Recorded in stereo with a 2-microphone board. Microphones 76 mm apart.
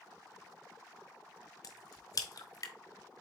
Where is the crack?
50° left (ahead or behind), 0.6 m.